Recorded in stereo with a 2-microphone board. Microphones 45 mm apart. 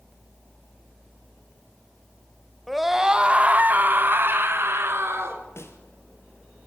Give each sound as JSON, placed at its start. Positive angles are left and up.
{"t": 2.7, "sound": "a scream", "side_deg": 5, "distance_m": 1.1}
{"t": 5.6, "sound": "a snare drum", "side_deg": 70, "distance_m": 2.5}